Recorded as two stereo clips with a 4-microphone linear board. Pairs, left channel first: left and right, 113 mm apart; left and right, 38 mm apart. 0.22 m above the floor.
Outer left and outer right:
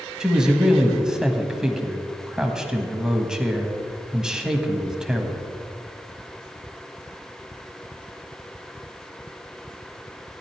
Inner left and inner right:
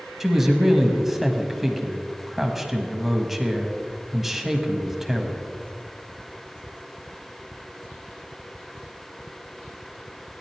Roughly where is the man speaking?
Centre.